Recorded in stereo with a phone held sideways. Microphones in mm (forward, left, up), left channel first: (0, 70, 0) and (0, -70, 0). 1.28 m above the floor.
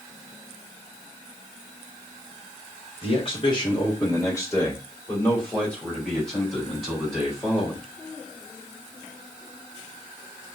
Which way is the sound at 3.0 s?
45° left (ahead or behind).